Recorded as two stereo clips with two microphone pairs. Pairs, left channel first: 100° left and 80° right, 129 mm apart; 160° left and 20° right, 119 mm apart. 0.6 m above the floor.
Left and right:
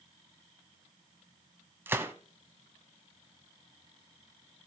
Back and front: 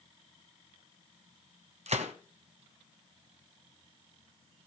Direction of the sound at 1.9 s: 5° right.